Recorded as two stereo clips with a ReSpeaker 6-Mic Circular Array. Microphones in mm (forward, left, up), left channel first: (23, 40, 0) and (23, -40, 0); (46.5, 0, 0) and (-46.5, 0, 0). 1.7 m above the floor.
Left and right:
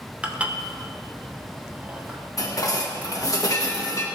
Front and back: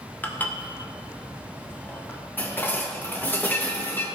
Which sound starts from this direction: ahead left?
Dishes clattering, at 2.4 s.